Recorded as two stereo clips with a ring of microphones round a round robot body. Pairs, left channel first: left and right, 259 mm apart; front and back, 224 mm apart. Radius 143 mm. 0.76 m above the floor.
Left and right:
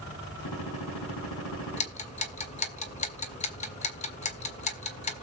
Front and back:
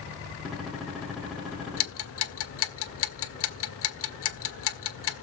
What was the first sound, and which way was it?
A gunshot, 90° left.